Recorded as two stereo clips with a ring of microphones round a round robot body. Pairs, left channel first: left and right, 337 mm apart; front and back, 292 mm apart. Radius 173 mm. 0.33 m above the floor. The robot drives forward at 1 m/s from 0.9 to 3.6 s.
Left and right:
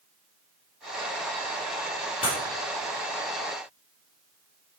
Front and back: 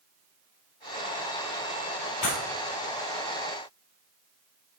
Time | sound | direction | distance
2.2 | breaking glass | 15° left | 3.5 m